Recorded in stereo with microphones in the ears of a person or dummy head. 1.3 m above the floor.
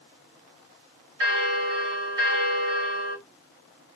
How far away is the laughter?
No laughter in this recording.